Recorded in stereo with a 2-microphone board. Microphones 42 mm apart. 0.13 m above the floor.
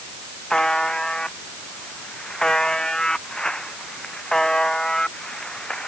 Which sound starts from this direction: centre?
A buzzer, at 0.5 s.